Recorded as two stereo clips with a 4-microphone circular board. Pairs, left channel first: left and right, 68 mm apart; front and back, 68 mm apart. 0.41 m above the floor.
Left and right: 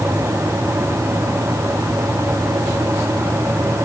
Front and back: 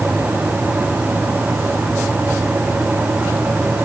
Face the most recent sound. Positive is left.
No sound to turn to.